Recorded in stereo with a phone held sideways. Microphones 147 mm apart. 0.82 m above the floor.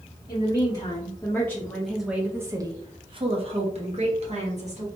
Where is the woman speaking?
30° left (ahead or behind), 1.2 m; by 4.9 s 50° right (ahead or behind), 1.5 m.